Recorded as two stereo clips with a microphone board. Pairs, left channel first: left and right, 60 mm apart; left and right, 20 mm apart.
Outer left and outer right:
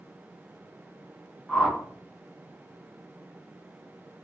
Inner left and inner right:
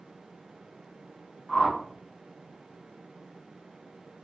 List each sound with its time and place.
1.5 s a whoosh: 5° left (ahead or behind), 0.7 m